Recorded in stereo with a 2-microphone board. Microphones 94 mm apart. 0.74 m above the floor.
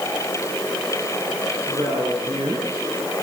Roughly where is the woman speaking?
Right.